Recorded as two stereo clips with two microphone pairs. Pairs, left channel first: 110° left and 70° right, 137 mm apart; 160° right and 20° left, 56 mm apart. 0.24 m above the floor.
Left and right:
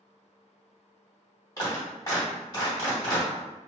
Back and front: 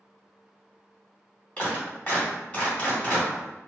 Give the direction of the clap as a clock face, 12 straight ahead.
7 o'clock.